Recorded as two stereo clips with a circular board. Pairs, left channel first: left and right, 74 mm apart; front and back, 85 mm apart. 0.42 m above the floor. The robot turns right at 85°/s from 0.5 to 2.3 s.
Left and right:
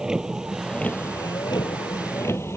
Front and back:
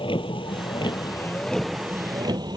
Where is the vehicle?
10° right; by 2.6 s 145° left.